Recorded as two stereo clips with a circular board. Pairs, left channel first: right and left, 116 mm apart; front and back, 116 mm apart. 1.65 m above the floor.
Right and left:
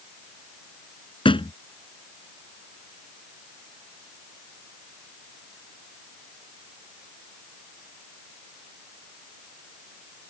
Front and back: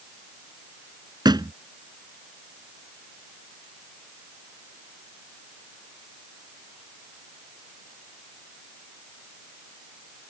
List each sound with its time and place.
1.2 s a thud: 130° right